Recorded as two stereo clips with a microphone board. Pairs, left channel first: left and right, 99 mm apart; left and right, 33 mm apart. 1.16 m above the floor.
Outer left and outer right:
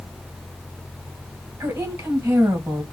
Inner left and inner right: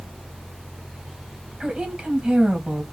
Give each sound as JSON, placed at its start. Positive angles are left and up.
{"t": 1.6, "sound": "a woman speaking", "side_deg": -20, "distance_m": 1.8}